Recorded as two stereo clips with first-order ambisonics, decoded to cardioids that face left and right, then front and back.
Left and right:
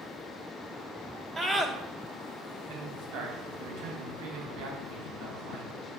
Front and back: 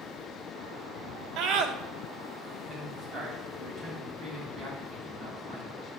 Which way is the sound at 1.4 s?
160° right.